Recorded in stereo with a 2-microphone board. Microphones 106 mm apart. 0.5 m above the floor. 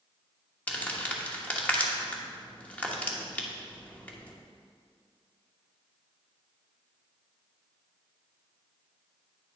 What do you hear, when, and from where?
0.7 s crumpling: 15° left (ahead or behind), 1.1 m